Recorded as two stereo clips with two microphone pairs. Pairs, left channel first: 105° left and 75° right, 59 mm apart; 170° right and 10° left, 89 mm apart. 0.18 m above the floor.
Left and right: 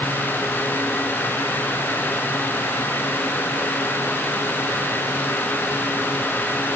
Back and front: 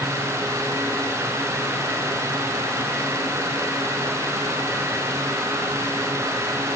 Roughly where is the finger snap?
I don't hear a finger snap.